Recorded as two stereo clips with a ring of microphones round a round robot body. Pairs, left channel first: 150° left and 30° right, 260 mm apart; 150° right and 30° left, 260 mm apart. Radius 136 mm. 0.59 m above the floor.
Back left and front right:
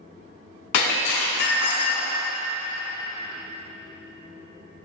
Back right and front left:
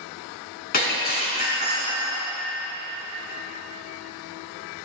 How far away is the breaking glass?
About 3.5 m.